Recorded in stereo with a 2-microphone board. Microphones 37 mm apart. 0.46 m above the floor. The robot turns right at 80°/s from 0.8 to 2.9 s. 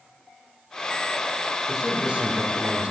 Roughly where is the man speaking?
Behind.